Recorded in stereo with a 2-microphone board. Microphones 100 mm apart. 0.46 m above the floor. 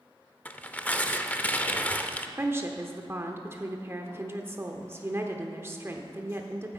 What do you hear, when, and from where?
0.5 s tearing paper: 15° left (ahead or behind), 0.7 m
2.4 s a woman speaking: 25° right (ahead or behind), 0.9 m